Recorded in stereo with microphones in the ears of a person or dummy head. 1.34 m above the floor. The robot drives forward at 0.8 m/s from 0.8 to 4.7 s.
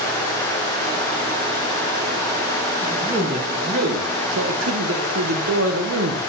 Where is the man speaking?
30° right (ahead or behind), 1.8 m; by 6.2 s 85° right, 0.9 m.